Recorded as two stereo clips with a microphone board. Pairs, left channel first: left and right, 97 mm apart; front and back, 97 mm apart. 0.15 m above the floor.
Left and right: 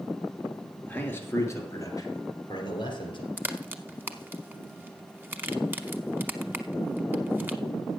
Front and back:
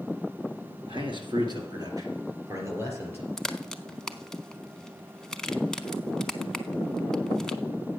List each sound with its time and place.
0.9 s a man speaking: 165° left, 2.5 m; by 3.3 s 110° left, 3 m
3.4 s a crack: 75° right, 0.6 m